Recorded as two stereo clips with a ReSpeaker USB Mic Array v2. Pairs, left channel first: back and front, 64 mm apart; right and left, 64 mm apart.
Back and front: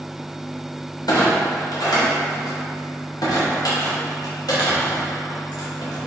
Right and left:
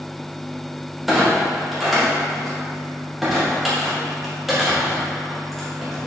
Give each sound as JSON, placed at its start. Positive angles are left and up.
{"t": 1.1, "sound": "a clunk", "azimuth_deg": 175, "distance_m": 1.1}